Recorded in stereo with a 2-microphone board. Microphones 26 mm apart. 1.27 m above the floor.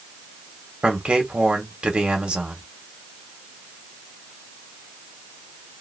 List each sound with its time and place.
0.8 s a man speaking: 50° right (ahead or behind), 1.5 m